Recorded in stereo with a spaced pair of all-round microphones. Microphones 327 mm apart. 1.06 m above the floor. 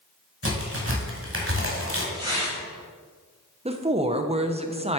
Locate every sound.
0.4 s a crack: 40° right (ahead or behind), 1.7 m
2.1 s tearing paper: 15° right (ahead or behind), 3 m
3.6 s a woman speaking: 20° right (ahead or behind), 0.6 m